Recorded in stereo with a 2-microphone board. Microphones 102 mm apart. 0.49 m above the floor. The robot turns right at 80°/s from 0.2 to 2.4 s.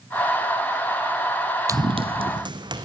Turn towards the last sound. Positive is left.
turn(degrees=-45)  # may be behind; listen again after turning